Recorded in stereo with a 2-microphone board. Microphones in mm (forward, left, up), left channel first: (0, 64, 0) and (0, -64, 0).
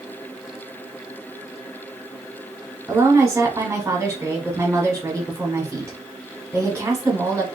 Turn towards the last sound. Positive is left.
turn(degrees=-25)  # may be behind; listen again after turning